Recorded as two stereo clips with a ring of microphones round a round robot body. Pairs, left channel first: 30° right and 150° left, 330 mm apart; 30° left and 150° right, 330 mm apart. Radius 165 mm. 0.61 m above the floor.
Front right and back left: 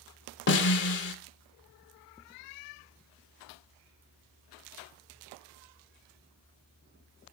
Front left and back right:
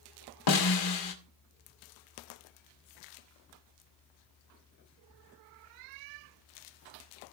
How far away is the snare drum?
About 2.0 m.